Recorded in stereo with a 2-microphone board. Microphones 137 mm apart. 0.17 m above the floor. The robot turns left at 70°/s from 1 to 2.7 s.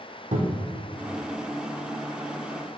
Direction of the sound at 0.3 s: 60° right (ahead or behind).